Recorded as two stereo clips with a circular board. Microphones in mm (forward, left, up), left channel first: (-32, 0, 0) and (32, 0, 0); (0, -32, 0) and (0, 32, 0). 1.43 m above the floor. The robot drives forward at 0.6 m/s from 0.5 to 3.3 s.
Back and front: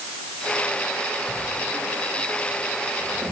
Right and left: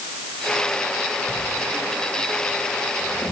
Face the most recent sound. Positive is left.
turn(degrees=-20)